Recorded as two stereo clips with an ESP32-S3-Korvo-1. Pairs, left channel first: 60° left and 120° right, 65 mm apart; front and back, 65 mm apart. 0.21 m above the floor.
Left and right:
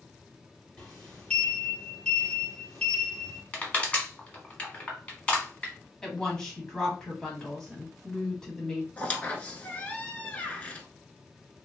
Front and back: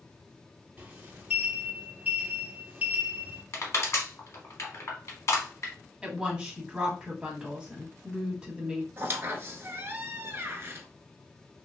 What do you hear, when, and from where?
0.8 s a sliding door: 130° left, 1.3 m
3.5 s crushing: straight ahead, 1.3 m
6.0 s a woman speaking: 125° left, 1.2 m
9.0 s a squeak: 130° left, 0.7 m